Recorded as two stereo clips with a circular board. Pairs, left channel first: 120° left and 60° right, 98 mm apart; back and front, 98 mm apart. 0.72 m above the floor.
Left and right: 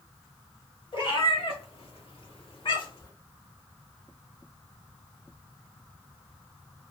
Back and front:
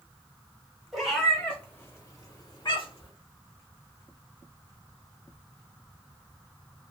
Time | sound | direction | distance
0.9 | a cat meowing | 90° left | 1.1 m